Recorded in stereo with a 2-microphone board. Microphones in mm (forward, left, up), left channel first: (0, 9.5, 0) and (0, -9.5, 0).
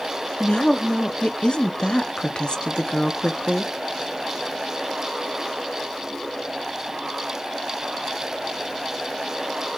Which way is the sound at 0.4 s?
60° left (ahead or behind).